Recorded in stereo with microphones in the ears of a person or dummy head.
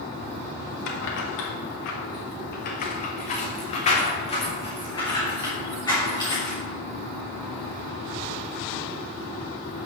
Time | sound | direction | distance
0.9 | keys jangling | 65° left (ahead or behind) | 1.4 m